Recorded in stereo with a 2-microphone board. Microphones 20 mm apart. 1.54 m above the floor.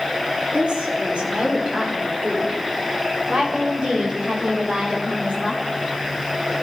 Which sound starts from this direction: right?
A woman speaking, at 0.5 s.